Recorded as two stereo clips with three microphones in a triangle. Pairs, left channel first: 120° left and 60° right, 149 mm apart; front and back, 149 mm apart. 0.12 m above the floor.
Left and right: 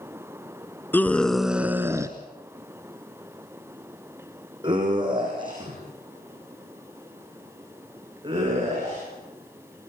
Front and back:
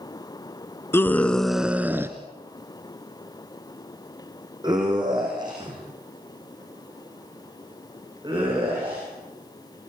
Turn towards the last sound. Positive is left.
turn(degrees=-120)